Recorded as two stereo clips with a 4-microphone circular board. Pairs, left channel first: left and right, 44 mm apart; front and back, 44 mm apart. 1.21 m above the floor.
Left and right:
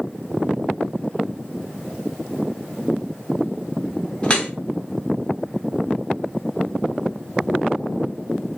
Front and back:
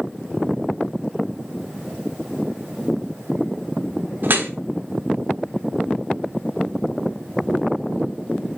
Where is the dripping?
150° left, 1.4 m.